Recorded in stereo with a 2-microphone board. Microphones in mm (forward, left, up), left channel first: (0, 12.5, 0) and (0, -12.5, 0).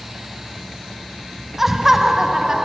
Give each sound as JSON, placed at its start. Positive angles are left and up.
{"t": 1.6, "sound": "laughter", "side_deg": -15, "distance_m": 1.8}